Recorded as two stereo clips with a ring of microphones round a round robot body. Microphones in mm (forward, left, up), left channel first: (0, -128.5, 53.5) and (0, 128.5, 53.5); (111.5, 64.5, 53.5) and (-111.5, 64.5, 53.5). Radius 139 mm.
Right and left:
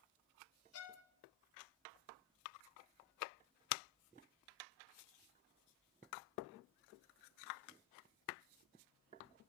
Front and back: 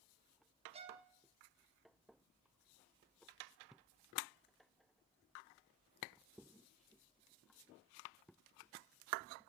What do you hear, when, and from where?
0.7 s a violin: 115° right, 2 m